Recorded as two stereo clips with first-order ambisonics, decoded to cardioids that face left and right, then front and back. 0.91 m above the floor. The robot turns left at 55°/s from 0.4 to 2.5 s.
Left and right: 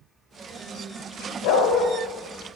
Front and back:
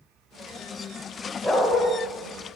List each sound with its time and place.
1.4 s a dog barking: 95° left, 1.7 m; by 1.9 s 75° left, 1.7 m